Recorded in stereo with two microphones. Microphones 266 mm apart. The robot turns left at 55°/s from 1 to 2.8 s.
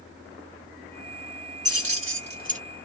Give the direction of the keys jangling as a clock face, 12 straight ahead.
3 o'clock.